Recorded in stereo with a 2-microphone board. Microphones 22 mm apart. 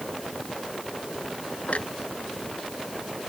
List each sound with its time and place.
1.7 s a clunk: 65° left (ahead or behind)